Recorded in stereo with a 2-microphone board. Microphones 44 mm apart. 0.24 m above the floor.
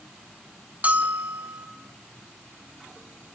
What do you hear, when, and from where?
0.8 s a bell: 35° right (ahead or behind), 1.1 m